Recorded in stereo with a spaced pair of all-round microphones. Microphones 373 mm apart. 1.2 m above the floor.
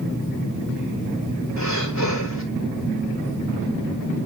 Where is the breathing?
50° left (ahead or behind), 3 m.